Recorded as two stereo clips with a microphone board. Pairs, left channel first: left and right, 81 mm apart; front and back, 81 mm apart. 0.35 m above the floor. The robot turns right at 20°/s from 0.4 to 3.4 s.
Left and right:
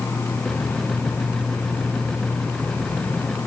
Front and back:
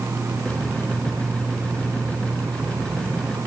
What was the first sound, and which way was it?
Only background noise.